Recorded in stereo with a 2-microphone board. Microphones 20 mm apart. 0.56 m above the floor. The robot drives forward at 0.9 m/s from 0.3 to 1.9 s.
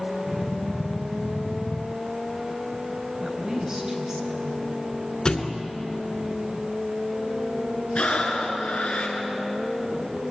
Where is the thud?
40° left (ahead or behind), 2.5 m.